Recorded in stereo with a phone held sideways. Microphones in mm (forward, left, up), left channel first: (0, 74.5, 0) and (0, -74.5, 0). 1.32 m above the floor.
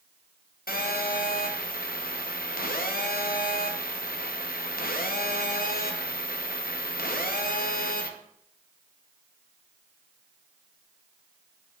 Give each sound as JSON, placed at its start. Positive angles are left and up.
{"t": 0.7, "sound": "a phone buzzing", "side_deg": 80, "distance_m": 0.8}